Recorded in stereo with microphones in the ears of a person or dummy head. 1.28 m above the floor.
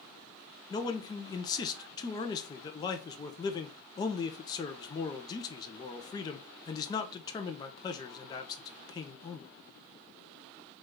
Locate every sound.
0.7 s a man speaking: 20° left (ahead or behind), 0.6 m